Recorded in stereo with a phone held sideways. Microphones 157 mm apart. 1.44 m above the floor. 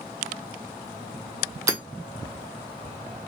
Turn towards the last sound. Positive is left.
turn(degrees=-20)  # may be behind; listen again after turning